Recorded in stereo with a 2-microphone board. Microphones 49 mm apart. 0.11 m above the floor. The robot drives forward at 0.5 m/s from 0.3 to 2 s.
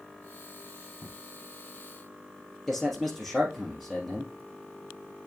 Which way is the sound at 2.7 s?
Centre (ahead or behind).